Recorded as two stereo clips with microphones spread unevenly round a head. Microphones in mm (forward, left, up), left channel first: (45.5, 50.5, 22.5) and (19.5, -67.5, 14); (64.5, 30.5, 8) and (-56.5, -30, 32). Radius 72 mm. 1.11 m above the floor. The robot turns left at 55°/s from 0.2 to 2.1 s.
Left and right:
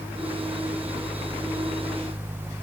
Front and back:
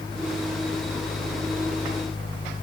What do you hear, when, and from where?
Only background noise.